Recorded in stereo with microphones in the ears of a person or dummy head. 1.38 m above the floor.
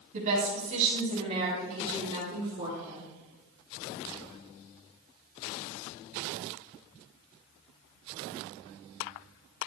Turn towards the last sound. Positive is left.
turn(degrees=-15)  # may be behind; listen again after turning